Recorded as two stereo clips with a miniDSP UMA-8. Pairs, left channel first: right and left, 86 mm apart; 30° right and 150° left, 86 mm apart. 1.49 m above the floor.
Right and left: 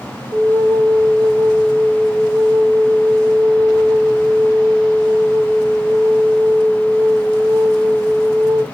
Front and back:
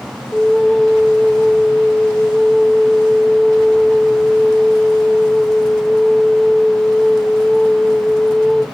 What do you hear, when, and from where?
0.3 s a flute: 45° left, 1.0 m